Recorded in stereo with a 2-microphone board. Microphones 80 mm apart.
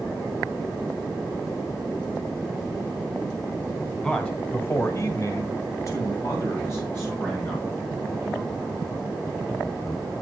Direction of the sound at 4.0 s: 15° left (ahead or behind).